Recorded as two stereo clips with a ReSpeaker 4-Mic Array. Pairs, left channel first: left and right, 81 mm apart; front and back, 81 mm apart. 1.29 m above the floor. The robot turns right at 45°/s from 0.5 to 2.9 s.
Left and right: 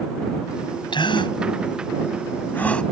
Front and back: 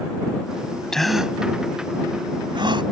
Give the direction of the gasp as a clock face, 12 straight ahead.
9 o'clock.